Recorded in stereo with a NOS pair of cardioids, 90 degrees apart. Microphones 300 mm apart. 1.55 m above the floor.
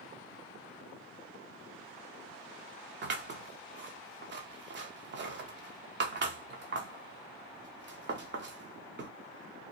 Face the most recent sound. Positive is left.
turn(degrees=-40)